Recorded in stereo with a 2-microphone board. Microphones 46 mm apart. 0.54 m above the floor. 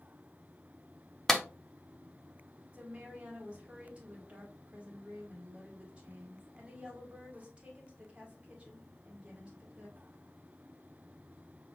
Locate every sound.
1.3 s a clap: 10° left (ahead or behind), 0.6 m
2.7 s a woman speaking: 25° right (ahead or behind), 1.8 m